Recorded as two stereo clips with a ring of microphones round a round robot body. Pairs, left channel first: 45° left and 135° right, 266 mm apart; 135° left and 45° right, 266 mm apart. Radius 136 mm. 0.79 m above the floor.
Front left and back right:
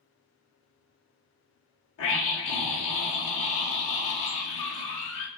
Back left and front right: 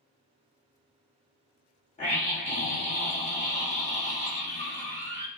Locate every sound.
2.0 s a scream: 75° left, 0.9 m